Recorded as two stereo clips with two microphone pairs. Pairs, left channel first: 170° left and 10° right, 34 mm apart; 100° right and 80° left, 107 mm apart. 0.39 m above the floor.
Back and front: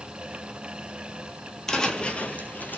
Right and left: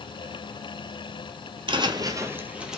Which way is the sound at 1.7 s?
95° left.